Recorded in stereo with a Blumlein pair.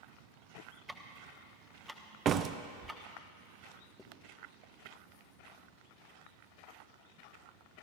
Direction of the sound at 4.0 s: 5° left.